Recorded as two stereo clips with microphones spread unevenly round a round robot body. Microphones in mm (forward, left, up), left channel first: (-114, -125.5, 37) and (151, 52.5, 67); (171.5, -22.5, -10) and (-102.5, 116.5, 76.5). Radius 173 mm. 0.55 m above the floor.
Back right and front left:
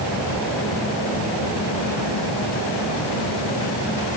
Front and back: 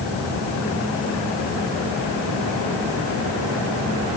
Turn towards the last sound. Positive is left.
No sound to turn to.